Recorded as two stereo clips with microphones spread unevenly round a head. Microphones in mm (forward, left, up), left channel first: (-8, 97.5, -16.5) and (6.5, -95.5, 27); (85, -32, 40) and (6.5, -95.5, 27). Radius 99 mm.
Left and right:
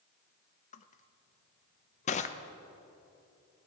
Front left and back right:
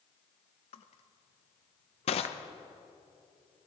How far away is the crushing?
About 0.7 m.